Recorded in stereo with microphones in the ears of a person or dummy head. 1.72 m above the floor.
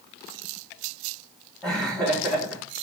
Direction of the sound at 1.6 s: 10° left (ahead or behind).